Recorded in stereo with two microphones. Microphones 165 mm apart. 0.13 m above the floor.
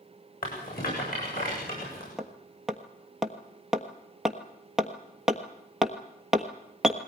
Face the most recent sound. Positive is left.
turn(degrees=0)  # may be behind; listen again after turning